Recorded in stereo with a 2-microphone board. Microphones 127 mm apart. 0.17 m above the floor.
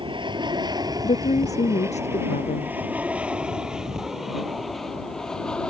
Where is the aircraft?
40° right (ahead or behind); by 5.7 s 5° left (ahead or behind).